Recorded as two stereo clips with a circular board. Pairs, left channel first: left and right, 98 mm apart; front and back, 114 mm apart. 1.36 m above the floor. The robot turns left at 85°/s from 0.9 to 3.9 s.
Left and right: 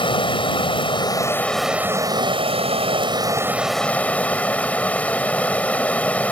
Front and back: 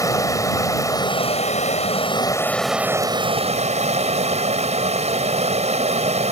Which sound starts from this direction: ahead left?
Running water, at 0.0 s.